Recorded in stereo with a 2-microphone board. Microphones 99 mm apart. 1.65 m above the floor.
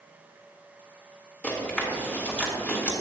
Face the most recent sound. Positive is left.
turn(degrees=15)  # may be behind; listen again after turning